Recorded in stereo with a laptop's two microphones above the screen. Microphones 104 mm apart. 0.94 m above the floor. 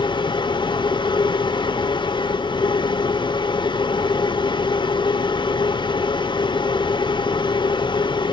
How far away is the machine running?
About 0.8 m.